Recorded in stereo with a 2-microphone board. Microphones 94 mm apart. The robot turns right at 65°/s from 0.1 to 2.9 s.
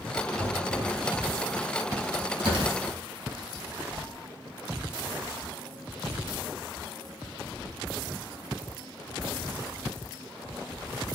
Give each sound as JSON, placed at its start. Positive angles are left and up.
{"t": 0.4, "sound": "knocking", "azimuth_deg": 60, "distance_m": 4.5}
{"t": 2.4, "sound": "tearing paper", "side_deg": -75, "distance_m": 3.5}